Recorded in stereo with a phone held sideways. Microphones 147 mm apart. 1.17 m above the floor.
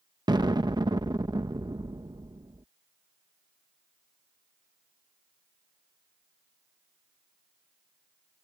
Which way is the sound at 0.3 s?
30° right (ahead or behind).